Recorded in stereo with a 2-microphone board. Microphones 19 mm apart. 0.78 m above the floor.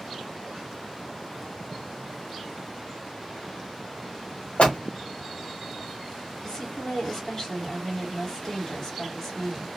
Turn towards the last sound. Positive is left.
turn(degrees=25)  # may be behind; listen again after turning